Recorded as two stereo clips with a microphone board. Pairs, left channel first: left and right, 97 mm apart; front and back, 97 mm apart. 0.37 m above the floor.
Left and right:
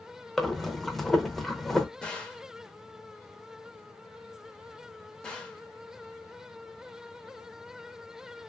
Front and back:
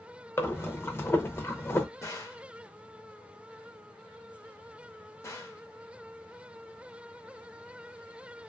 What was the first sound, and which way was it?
Breathing, straight ahead.